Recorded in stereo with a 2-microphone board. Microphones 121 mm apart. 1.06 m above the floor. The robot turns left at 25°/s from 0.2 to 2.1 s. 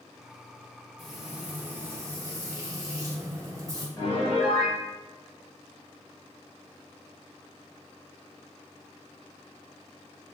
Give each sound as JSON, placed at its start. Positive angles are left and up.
{"t": 1.0, "sound": "frying", "side_deg": 0, "distance_m": 1.0}
{"t": 4.0, "sound": "a piano", "side_deg": 40, "distance_m": 1.6}